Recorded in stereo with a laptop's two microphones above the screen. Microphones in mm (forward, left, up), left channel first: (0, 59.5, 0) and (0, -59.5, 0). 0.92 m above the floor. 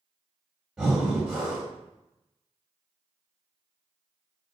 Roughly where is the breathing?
Centre.